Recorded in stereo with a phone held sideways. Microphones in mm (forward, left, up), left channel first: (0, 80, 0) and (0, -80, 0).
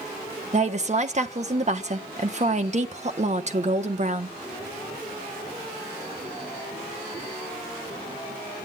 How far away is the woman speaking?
About 1.2 m.